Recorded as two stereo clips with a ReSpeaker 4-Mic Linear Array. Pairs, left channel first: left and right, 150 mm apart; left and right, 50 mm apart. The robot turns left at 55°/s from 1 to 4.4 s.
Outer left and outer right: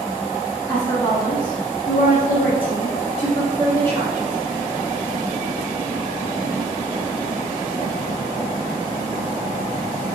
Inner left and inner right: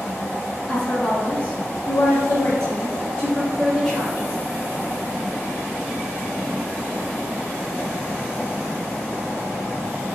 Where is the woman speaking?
165° left, 1.0 m; by 4.3 s 20° right, 1.0 m.